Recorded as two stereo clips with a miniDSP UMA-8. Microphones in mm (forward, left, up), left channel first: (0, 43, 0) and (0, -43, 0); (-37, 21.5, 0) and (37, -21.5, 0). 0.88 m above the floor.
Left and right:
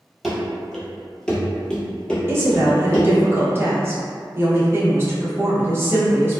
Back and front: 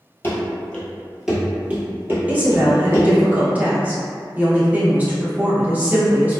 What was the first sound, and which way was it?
Running footsteps, straight behind.